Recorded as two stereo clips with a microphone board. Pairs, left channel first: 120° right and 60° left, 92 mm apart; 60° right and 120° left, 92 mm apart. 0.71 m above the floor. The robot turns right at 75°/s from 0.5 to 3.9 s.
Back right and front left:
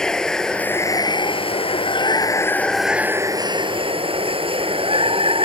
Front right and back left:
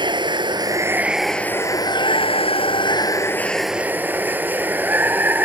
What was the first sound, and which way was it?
Running water, 155° left.